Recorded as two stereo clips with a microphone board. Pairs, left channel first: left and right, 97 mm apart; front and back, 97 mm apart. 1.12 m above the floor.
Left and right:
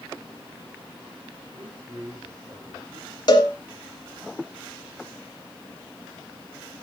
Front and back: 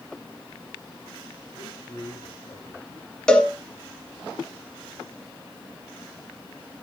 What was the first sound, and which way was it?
A man speaking, 30° right.